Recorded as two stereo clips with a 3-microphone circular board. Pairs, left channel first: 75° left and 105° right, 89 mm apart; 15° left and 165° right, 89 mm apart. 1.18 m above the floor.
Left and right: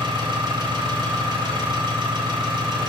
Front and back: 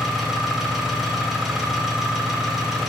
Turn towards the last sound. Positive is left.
turn(degrees=-80)